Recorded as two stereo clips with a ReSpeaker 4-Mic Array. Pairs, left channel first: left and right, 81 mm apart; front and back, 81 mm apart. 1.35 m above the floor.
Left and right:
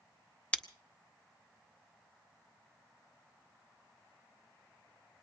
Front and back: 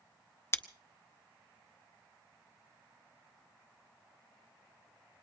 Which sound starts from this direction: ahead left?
Scissors, at 0.5 s.